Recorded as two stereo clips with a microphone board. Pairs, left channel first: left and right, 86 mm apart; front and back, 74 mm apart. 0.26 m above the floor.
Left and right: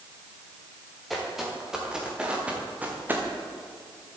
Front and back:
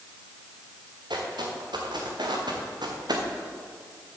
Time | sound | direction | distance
1.1 | footsteps | straight behind | 3.5 m